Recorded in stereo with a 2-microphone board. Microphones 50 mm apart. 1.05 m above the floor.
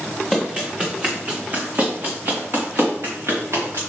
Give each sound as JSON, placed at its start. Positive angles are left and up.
{"t": 0.3, "sound": "running footsteps", "side_deg": -15, "distance_m": 3.5}